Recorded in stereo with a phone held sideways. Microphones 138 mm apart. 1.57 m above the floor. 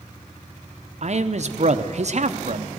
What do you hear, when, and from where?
1.0 s a man speaking: 55° right (ahead or behind), 0.7 m